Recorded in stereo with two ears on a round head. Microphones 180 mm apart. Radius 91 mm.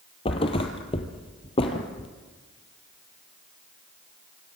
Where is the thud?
25° left (ahead or behind), 2.5 m.